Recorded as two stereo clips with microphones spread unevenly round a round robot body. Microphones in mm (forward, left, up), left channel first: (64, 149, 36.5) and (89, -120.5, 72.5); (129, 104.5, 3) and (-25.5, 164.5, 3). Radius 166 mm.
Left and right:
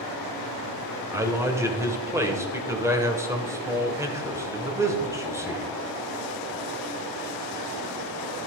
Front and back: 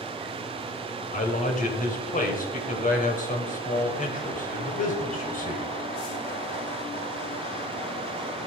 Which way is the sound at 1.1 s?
Straight ahead.